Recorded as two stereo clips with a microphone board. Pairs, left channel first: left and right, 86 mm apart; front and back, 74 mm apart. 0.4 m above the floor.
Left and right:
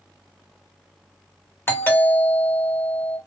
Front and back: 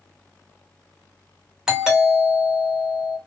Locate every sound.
1.7 s a doorbell: 110° left, 1.4 m